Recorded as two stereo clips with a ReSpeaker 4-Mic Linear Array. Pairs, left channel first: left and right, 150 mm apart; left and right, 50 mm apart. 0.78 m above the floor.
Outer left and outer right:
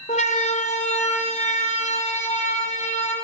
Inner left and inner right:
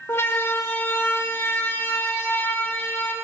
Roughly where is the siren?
Left.